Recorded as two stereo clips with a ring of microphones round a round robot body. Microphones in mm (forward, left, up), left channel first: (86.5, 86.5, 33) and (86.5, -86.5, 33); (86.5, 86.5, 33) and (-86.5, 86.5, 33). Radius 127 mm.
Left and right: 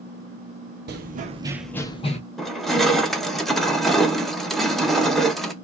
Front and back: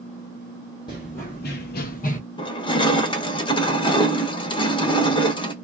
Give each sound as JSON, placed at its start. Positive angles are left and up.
{"t": 0.9, "sound": "running footsteps", "azimuth_deg": -70, "distance_m": 0.8}
{"t": 2.4, "sound": "crushing", "azimuth_deg": 5, "distance_m": 0.9}